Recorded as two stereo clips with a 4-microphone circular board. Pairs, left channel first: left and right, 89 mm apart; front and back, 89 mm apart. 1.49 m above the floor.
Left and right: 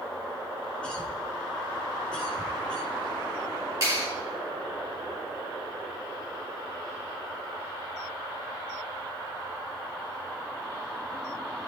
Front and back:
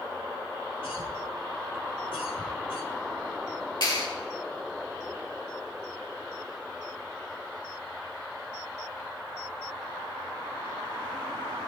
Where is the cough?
10° left, 4.5 m.